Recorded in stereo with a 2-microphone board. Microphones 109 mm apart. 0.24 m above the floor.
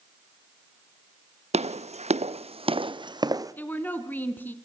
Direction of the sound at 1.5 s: 75° right (ahead or behind).